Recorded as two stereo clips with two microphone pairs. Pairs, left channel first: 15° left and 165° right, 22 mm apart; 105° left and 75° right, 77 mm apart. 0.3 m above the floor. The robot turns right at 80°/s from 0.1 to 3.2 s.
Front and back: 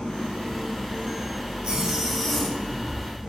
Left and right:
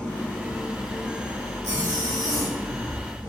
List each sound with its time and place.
0.0 s an engine running: 25° left, 3.5 m; by 3.3 s 85° right, 3.5 m
1.6 s a zipper: 135° right, 3 m; by 2.6 s 60° right, 3 m